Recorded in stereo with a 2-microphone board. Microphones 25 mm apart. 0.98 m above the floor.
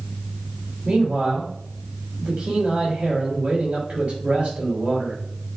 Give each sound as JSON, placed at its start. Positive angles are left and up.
{"t": 0.8, "sound": "a man speaking", "side_deg": -85, "distance_m": 2.0}